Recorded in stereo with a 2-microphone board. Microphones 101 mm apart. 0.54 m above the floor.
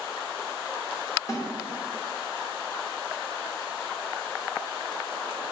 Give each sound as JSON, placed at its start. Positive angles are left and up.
{"t": 1.3, "sound": "a snare drum", "side_deg": 30, "distance_m": 2.5}